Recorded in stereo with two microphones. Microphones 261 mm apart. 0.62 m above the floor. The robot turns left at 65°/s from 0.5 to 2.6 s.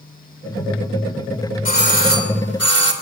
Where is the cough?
I don't hear a cough.